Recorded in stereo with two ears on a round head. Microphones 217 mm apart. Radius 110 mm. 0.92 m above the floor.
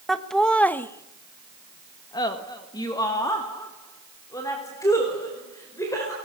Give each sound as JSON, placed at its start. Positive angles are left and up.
{"t": 0.1, "sound": "laughter", "side_deg": 0, "distance_m": 1.2}